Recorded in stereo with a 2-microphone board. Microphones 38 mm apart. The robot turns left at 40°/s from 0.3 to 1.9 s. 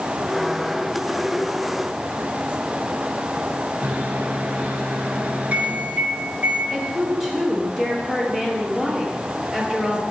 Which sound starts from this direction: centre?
A woman speaking, at 6.7 s.